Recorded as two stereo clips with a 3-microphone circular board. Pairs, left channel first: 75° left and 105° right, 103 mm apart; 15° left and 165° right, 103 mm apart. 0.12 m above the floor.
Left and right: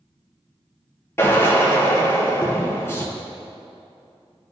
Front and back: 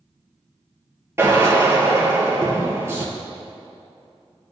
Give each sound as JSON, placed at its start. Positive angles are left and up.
{"t": 1.2, "sound": "a drill", "azimuth_deg": 135, "distance_m": 2.5}